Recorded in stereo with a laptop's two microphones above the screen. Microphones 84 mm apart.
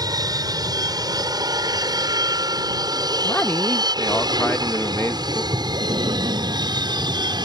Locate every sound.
0.0 s an aircraft: 50° right (ahead or behind); by 7.5 s 55° right (ahead or behind)
3.2 s a man speaking: 25° left (ahead or behind)
5.5 s breathing: 75° right (ahead or behind)